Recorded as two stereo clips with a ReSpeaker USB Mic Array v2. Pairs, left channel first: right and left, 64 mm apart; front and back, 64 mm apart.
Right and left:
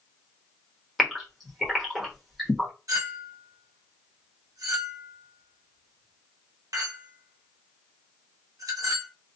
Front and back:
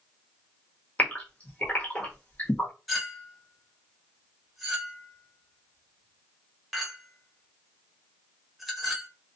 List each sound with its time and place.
1.0 s a gasp: 5° left, 1.0 m
2.9 s a clink: 95° left, 0.9 m